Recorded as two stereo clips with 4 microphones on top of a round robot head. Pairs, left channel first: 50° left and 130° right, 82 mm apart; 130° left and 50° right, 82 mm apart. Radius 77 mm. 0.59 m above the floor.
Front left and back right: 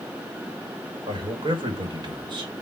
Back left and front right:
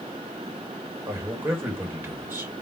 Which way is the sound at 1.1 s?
110° right.